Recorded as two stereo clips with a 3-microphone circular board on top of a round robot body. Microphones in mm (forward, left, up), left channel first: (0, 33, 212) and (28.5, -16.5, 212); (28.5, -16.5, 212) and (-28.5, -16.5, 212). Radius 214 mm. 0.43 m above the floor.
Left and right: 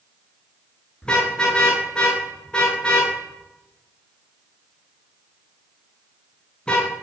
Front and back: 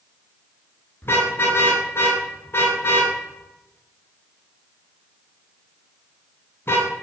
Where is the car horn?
45° left, 5.5 m.